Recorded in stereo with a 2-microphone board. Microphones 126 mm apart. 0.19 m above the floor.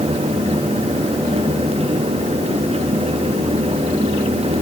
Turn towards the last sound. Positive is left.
No sound to turn to.